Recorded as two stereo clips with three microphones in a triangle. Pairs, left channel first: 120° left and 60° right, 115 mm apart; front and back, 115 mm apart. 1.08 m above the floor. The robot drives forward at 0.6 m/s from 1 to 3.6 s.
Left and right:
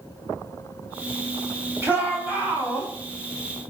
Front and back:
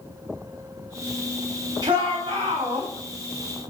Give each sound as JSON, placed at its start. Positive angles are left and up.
{"t": 1.8, "sound": "a shout", "azimuth_deg": -130, "distance_m": 4.0}